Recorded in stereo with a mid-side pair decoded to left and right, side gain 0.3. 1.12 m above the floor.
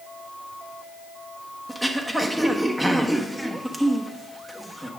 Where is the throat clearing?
15° right, 1.3 m.